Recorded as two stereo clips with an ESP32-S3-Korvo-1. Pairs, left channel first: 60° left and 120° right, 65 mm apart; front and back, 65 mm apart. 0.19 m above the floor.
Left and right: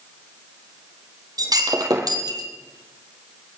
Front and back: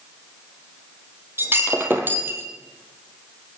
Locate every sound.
1.4 s breaking glass: 125° right, 2 m